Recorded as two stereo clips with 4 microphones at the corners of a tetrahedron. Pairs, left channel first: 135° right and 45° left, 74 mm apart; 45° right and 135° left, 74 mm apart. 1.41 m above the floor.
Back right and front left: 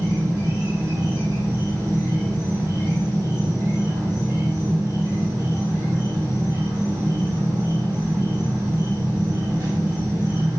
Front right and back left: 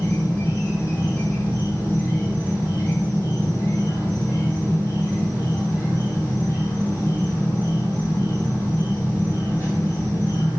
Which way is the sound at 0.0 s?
10° left.